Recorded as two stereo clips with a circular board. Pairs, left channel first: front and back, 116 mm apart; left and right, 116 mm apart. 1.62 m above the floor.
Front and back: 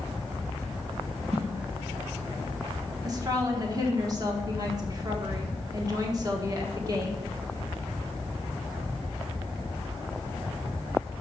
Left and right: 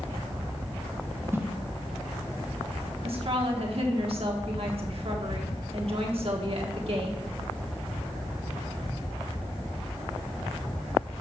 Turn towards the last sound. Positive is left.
turn(degrees=-125)